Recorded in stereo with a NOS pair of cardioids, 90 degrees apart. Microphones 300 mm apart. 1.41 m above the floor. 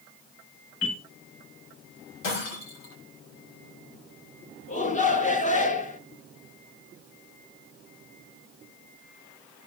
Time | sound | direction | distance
0.8 | a bell | 55° left | 5.5 m
2.2 | breaking glass | 70° left | 7 m
4.7 | a shout | 25° left | 1.9 m